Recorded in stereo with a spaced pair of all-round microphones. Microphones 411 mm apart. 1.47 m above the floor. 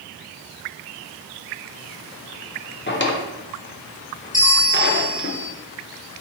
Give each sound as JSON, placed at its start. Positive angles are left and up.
{"t": 2.9, "sound": "a drawer", "side_deg": 30, "distance_m": 0.6}
{"t": 4.3, "sound": "a bell", "side_deg": 20, "distance_m": 1.0}